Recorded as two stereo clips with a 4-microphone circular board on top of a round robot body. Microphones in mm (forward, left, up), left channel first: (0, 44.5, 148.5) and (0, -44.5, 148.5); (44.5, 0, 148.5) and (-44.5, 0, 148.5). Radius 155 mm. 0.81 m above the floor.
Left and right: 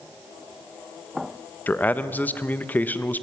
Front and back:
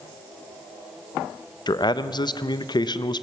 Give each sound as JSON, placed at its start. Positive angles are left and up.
{"t": 1.7, "sound": "a man speaking", "azimuth_deg": 20, "distance_m": 1.0}